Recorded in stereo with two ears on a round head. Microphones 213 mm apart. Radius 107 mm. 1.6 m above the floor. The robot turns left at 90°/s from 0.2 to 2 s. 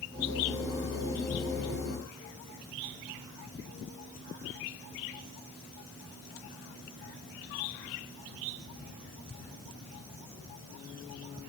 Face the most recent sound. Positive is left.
No sound to turn to.